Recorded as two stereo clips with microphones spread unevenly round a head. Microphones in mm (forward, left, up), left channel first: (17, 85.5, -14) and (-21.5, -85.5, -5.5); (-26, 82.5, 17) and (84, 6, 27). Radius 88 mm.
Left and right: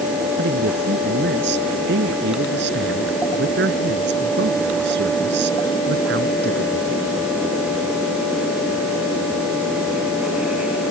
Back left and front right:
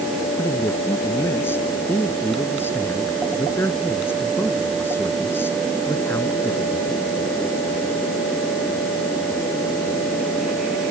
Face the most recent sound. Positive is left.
turn(degrees=-135)